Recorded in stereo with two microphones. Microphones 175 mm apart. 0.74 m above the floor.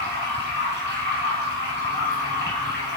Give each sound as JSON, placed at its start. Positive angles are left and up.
{"t": 0.0, "sound": "running water", "side_deg": -80, "distance_m": 2.5}